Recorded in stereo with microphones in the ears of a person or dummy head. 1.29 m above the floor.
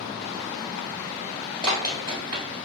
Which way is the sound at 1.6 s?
30° right (ahead or behind).